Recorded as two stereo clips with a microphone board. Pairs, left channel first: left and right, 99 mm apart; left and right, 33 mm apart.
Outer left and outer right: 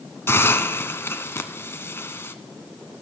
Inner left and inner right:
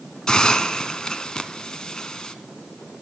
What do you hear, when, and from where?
0.3 s a hiss: 25° left (ahead or behind), 0.9 m